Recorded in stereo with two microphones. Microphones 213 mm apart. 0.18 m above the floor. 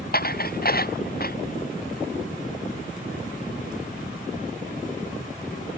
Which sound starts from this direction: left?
Dishes clattering, at 0.1 s.